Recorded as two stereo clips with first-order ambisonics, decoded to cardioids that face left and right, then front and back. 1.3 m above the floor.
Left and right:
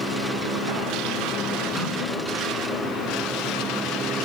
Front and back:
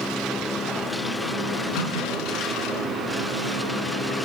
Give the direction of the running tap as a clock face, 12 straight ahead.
12 o'clock.